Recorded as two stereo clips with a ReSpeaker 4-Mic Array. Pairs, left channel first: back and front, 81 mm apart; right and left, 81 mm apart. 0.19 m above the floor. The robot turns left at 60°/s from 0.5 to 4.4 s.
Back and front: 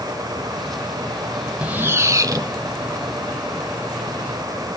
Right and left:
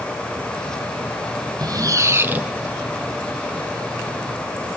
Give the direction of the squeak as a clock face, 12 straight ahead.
10 o'clock.